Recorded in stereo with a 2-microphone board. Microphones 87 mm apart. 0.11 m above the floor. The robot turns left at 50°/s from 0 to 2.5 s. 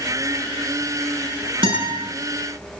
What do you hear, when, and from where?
1.6 s a guitar: 75° right (ahead or behind), 8.5 m; by 2.0 s 60° right (ahead or behind), 8.5 m